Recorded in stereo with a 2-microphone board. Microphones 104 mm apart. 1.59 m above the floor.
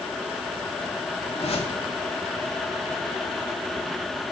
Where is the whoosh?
80° left, 3 m.